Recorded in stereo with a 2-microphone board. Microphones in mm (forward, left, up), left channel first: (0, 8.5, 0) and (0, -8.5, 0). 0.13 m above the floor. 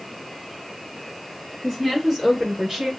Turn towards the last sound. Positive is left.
turn(degrees=-35)  # may be behind; listen again after turning